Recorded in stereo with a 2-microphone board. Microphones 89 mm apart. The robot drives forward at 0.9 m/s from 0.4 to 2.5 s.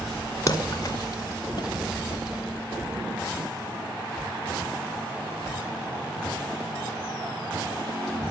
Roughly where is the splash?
Left.